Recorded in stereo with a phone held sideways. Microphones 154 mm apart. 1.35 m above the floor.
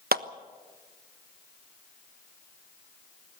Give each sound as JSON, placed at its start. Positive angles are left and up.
{"t": 0.1, "sound": "a clap", "side_deg": -80, "distance_m": 1.1}